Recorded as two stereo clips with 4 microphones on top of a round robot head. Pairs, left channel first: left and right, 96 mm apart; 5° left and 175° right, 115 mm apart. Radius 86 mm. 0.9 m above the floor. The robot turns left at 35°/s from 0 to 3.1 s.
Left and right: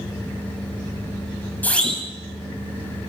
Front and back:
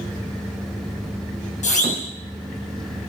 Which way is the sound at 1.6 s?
15° left.